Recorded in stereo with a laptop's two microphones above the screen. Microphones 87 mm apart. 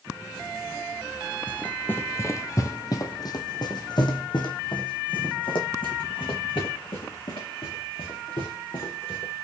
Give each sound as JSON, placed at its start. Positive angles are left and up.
{"t": 1.5, "sound": "running footsteps", "side_deg": 15, "distance_m": 1.3}